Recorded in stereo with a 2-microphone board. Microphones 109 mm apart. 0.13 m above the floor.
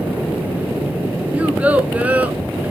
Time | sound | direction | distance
1.3 | a child speaking | 15° right (ahead or behind) | 0.9 m